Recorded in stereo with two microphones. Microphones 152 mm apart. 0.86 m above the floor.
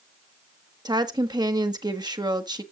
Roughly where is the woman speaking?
Right.